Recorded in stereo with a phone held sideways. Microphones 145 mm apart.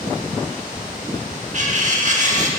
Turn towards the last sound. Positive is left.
turn(degrees=-55)  # may be behind; listen again after turning